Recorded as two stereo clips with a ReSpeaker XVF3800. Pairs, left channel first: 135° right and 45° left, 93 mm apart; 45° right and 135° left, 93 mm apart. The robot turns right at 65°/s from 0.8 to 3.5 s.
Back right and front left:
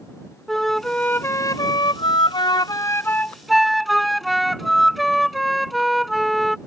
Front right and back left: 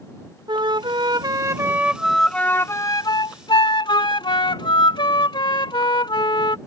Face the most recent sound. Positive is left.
turn(degrees=-45)